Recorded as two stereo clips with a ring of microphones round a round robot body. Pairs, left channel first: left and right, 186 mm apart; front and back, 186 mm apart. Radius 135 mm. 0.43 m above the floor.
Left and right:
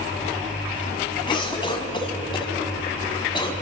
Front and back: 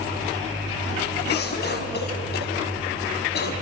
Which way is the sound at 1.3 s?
25° left.